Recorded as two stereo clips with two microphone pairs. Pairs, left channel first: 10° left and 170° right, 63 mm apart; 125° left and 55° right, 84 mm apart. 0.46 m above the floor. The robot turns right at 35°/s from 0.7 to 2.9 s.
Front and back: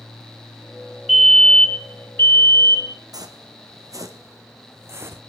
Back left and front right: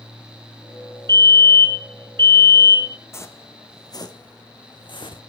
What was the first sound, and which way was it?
A fire alarm, 80° right.